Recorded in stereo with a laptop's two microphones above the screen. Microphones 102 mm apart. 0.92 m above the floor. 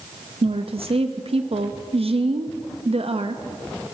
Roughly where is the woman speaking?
Right.